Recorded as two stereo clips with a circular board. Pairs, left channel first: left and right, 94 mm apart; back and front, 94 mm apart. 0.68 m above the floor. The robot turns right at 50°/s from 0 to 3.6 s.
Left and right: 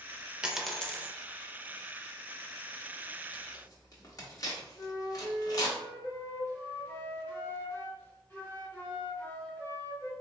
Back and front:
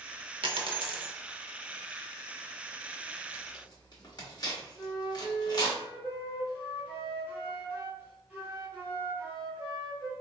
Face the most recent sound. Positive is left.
turn(degrees=50)